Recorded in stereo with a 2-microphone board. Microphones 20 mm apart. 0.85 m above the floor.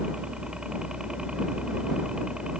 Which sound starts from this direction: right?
A helicopter, at 0.0 s.